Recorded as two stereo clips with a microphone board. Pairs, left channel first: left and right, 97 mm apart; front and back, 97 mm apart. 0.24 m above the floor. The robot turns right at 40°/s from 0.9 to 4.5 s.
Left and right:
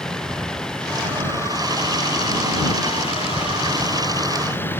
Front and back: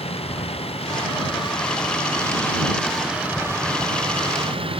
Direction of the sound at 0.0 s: 5° left.